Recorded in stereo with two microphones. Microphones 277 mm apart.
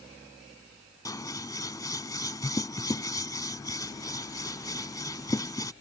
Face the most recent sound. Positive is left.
turn(degrees=15)  # may be behind; listen again after turning